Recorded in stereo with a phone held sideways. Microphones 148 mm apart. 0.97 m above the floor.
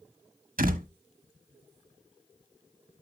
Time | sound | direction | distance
0.6 | a door slam | 75° right (ahead or behind) | 1.1 m